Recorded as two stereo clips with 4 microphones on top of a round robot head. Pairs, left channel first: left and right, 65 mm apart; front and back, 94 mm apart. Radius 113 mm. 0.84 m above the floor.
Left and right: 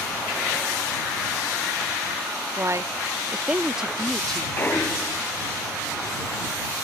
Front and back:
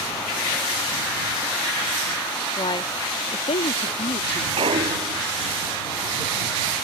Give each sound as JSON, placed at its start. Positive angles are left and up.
{"t": 2.6, "sound": "a woman speaking", "azimuth_deg": -45}
{"t": 4.6, "sound": "a clunk", "azimuth_deg": 155}